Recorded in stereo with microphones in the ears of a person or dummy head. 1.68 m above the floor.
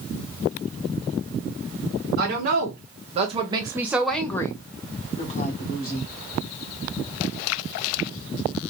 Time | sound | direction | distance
2.2 | a woman speaking | 60° right (ahead or behind) | 1.3 m